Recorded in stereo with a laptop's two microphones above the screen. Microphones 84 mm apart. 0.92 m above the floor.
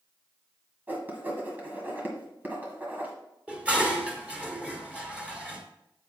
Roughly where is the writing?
Right.